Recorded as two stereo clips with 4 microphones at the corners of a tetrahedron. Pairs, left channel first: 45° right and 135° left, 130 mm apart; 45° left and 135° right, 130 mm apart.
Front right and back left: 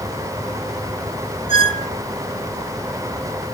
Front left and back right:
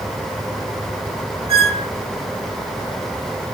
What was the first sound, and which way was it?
A squeak, straight behind.